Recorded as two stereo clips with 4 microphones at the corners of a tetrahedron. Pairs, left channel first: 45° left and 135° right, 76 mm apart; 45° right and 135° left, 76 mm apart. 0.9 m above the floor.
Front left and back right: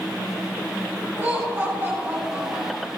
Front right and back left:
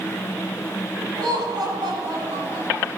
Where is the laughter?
160° left, 6.5 m; by 2.9 s 165° left, 7.5 m.